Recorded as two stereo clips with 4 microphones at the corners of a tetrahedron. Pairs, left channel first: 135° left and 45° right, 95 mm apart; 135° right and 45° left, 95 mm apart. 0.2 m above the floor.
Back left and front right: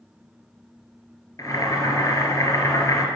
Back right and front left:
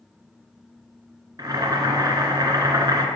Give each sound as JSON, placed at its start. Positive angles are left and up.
{"t": 1.4, "sound": "boiling", "azimuth_deg": 85, "distance_m": 1.7}